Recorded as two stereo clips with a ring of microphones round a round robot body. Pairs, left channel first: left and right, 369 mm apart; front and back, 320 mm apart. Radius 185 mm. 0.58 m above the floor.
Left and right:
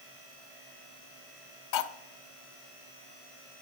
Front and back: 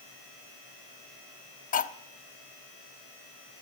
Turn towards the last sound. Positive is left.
turn(degrees=60)